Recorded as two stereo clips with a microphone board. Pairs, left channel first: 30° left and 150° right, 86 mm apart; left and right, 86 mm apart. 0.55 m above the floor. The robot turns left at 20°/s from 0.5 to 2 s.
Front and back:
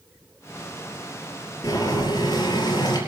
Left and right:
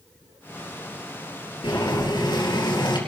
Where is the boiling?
70° left, 5 m; by 3.0 s 65° left, 5 m.